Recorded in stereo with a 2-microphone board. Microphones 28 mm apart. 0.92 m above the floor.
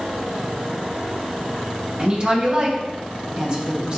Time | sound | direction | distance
2.0 | a woman speaking | 40° right (ahead or behind) | 1.3 m